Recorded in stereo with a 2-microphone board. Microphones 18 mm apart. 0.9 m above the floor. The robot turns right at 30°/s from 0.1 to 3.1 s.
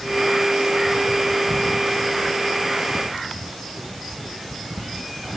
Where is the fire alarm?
No fire alarm in this recording.